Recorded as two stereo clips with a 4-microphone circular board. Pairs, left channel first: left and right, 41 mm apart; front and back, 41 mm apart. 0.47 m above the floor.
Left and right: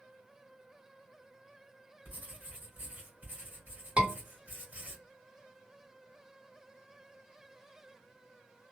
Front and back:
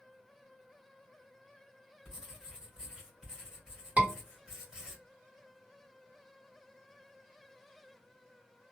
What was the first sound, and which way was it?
Writing, 110° right.